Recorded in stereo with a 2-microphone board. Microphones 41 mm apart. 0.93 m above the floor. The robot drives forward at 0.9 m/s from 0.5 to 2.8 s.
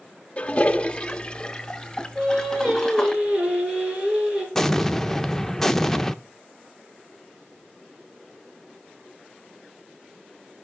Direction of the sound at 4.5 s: 10° left (ahead or behind).